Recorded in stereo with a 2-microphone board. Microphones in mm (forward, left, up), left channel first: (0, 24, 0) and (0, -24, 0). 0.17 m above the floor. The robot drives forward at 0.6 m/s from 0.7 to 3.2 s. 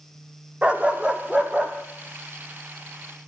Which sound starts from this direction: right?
A dog barking, at 0.6 s.